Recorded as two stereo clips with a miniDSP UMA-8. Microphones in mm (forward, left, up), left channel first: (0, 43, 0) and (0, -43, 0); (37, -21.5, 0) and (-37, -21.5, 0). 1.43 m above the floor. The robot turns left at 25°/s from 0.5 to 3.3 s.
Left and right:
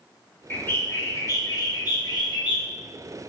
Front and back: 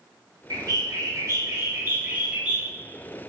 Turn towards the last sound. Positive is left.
turn(degrees=85)